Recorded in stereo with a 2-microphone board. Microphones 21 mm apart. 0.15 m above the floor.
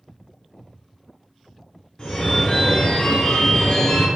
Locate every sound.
2.0 s a phone ringing: 35° left (ahead or behind), 1.1 m